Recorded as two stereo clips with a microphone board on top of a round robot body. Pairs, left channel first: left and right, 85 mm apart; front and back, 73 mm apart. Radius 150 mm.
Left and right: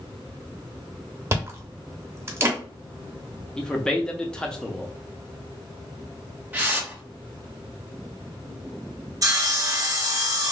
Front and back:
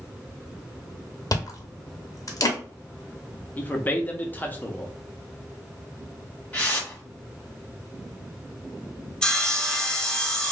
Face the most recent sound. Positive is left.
turn(degrees=-75)